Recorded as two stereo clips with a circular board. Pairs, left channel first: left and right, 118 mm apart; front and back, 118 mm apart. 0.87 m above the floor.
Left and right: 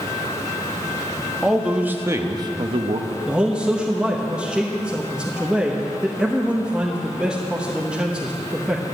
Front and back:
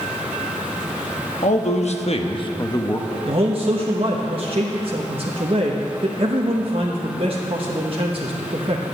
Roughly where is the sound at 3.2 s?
Behind.